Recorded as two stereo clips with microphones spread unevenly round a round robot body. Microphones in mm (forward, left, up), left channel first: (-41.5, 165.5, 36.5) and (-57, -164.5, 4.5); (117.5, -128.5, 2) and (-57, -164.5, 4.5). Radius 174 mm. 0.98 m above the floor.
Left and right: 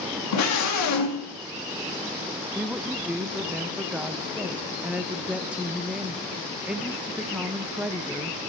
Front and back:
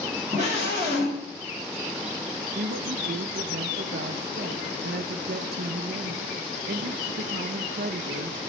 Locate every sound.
0.3 s a scream: 125° left, 2.5 m
2.5 s a woman speaking: 175° right, 0.6 m